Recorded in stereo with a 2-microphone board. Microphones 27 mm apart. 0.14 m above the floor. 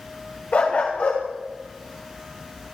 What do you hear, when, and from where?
0.5 s a dog barking: 70° left (ahead or behind), 5.5 m